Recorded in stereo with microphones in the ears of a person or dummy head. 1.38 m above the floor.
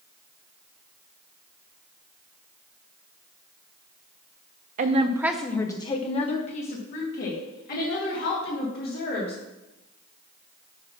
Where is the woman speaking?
45° right (ahead or behind), 0.6 m; by 9.4 s 60° left (ahead or behind), 3 m.